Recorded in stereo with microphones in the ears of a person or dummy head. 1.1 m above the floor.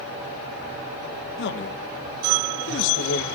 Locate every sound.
1.4 s a man speaking: 60° left (ahead or behind), 1.2 m